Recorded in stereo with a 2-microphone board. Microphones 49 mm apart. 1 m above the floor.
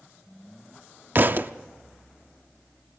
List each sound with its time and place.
1.1 s a thud: 40° right (ahead or behind), 0.6 m